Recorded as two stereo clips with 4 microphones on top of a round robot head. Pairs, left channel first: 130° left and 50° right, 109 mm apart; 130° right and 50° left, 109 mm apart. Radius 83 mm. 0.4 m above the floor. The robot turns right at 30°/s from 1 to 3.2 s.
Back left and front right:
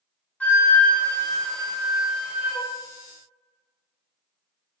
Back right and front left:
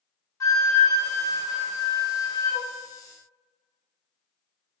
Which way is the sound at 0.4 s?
160° right.